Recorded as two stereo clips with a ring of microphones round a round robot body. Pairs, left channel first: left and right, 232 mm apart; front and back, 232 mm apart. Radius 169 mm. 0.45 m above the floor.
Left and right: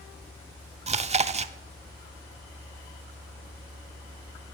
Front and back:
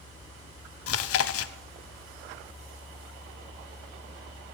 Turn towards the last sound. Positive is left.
turn(degrees=-25)